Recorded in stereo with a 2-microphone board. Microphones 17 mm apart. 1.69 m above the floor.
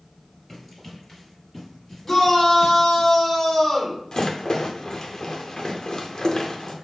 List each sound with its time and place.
0.5 s running footsteps: 5° left (ahead or behind), 1.7 m; by 3.0 s 10° left (ahead or behind), 2.0 m
2.0 s a shout: 15° left (ahead or behind), 1.6 m
4.1 s a rattle: 45° left (ahead or behind), 0.7 m